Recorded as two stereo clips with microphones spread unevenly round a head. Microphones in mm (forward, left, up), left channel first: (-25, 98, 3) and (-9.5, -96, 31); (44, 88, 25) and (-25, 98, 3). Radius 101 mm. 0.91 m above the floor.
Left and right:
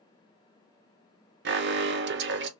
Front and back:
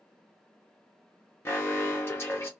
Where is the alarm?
80° right, 0.6 m.